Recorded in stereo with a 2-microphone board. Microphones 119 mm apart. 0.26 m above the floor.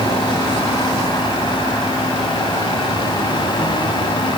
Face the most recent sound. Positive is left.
No sound to turn to.